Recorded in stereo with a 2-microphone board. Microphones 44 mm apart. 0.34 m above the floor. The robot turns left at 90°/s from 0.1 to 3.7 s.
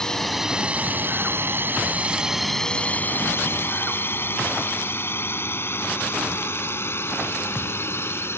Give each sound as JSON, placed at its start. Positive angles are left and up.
{"t": 0.0, "sound": "a drone", "side_deg": 15}